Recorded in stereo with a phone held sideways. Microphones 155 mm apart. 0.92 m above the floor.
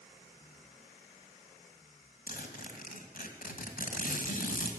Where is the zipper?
65° left (ahead or behind), 2 m.